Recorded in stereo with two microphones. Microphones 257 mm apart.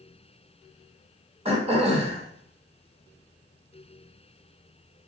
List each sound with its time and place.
1.4 s throat clearing: 25° right (ahead or behind), 2.5 m